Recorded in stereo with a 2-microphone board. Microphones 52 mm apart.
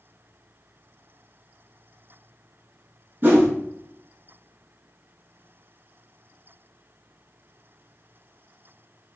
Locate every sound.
3.2 s a whoosh: 40° right (ahead or behind), 0.9 m